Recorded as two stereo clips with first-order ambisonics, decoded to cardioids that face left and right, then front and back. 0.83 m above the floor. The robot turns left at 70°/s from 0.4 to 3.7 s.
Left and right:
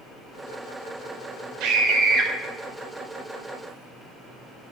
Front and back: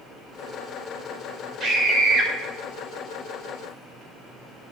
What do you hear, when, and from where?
1.6 s a scream: 120° right, 3.5 m; by 2.3 s 170° right, 3.5 m